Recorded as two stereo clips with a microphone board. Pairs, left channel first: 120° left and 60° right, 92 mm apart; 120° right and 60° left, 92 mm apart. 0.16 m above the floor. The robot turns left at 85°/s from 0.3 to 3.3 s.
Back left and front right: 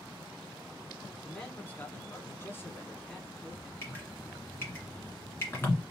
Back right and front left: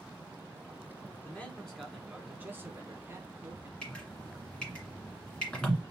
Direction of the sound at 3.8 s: 165° left.